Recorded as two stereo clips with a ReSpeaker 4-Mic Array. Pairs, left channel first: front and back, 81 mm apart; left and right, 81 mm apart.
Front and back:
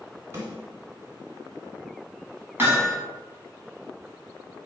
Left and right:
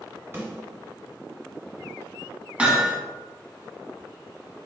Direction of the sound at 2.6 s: 150° right.